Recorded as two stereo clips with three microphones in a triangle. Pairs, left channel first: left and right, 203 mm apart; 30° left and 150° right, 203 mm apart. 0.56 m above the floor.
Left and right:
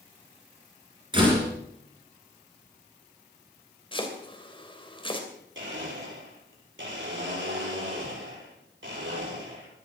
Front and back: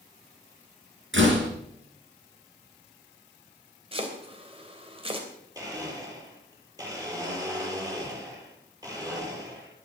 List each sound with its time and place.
1.1 s a door slam: 155° right, 5 m
3.9 s chopping: 150° left, 3 m
5.5 s a blender: 75° right, 7 m